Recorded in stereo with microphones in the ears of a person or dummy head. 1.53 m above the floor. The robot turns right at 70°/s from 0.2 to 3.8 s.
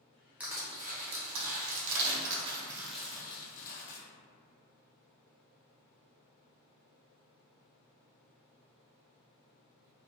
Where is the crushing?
5° right (ahead or behind), 0.6 m; by 4.0 s 65° left (ahead or behind), 0.6 m.